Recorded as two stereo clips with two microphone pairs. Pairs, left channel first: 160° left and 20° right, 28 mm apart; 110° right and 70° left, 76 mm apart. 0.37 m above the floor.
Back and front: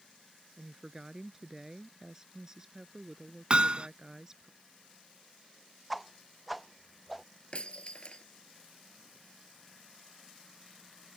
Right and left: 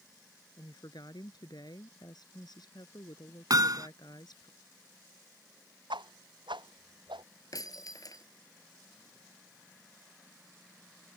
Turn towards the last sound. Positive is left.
turn(degrees=-150)